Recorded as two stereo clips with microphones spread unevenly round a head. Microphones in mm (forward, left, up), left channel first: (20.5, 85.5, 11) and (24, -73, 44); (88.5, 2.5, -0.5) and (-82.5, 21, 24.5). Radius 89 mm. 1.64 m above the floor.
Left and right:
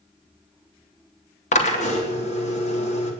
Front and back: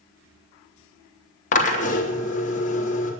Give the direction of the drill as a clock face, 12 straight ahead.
11 o'clock.